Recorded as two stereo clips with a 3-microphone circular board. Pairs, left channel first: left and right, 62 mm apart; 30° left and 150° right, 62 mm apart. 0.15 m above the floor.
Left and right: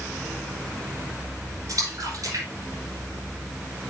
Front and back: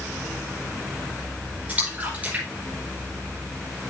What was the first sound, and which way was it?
A splash, 85° right.